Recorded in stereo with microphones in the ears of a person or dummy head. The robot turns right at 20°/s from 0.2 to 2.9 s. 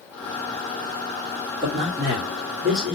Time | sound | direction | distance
1.6 | a man speaking | 30° right (ahead or behind) | 1.1 m